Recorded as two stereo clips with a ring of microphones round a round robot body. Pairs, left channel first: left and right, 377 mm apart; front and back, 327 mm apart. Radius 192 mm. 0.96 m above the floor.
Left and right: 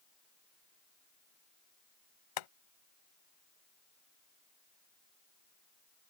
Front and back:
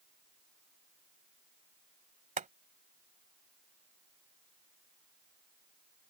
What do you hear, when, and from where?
2.4 s boiling: 115° left